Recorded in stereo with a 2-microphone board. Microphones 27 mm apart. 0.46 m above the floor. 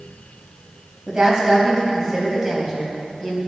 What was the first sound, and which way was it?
A woman speaking, 20° right (ahead or behind).